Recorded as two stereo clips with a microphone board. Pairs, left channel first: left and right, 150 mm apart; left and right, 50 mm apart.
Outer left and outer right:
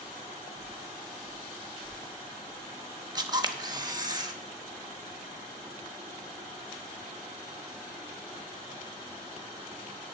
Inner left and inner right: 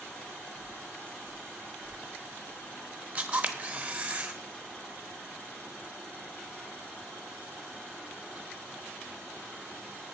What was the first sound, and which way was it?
Footsteps, 70° left (ahead or behind).